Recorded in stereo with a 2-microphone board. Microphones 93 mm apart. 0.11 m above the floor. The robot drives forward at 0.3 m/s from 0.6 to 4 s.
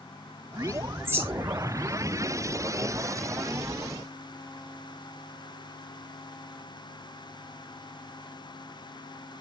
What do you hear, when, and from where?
1.1 s a bird: 25° right (ahead or behind), 2 m; by 1.9 s 20° right (ahead or behind), 2.5 m